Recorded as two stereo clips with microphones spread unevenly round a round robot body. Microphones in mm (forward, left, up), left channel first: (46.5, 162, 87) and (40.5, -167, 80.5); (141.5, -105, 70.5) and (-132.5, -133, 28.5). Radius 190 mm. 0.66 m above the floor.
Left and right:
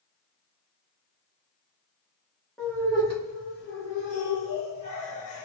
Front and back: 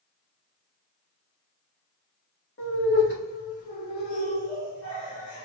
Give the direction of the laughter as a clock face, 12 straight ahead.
12 o'clock.